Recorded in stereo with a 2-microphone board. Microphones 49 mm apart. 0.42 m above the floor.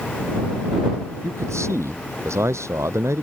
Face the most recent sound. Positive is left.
turn(degrees=-85)